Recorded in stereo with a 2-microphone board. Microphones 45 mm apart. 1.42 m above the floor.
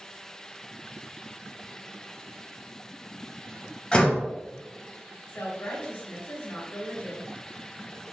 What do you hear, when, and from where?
3.9 s a door slam: 25° left (ahead or behind), 0.9 m
5.3 s a woman speaking: 65° left (ahead or behind), 1.9 m